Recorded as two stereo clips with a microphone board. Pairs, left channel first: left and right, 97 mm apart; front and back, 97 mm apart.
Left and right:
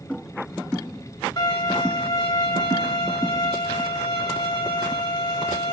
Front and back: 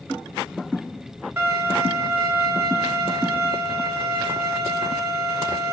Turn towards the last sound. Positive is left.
turn(degrees=115)